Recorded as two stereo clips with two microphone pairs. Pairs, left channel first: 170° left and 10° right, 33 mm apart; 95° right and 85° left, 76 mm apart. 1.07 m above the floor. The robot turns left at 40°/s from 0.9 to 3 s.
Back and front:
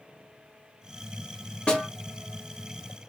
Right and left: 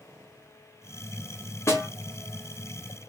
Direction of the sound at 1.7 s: 140° right.